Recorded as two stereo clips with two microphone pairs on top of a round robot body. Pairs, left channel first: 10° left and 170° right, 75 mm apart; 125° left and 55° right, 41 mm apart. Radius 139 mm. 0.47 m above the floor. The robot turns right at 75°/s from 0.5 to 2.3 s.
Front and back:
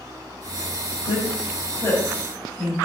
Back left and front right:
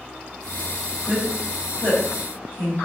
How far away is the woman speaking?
About 3.5 m.